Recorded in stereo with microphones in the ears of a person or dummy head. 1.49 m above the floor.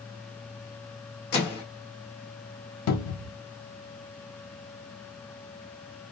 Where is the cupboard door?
80° left, 0.6 m.